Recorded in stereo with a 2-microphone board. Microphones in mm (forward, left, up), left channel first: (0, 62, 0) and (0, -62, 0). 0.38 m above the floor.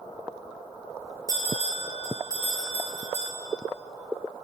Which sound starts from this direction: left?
A bell, at 1.3 s.